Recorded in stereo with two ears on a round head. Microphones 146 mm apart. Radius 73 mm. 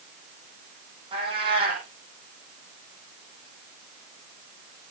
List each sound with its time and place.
1.1 s a cat meowing: 35° right (ahead or behind), 9 m